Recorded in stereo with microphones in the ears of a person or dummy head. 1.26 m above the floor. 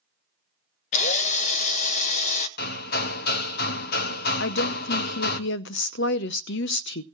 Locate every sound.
0.9 s a drill: 40° left (ahead or behind), 0.9 m
2.6 s hammering: 60° left (ahead or behind), 0.9 m
4.4 s a woman speaking: 60° left (ahead or behind), 0.7 m